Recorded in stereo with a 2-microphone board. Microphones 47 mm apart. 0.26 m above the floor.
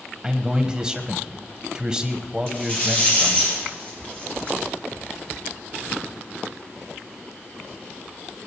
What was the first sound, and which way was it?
A man speaking, 15° right (ahead or behind).